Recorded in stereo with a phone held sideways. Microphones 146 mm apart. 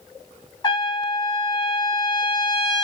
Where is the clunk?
No clunk in this recording.